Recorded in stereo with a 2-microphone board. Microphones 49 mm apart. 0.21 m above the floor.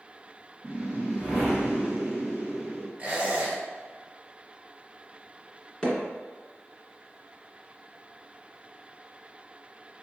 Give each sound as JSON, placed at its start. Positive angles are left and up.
{"t": 0.6, "sound": "a whoosh", "side_deg": -20, "distance_m": 2.0}
{"t": 3.0, "sound": "a squeak", "side_deg": -25, "distance_m": 1.7}
{"t": 5.8, "sound": "hammering", "side_deg": 20, "distance_m": 1.6}